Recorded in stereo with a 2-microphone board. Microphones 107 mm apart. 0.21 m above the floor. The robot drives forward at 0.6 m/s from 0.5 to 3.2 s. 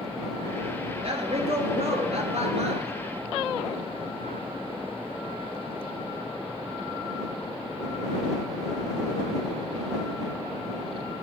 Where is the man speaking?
55° right (ahead or behind), 3.5 m; by 2.9 s 70° right (ahead or behind), 3 m.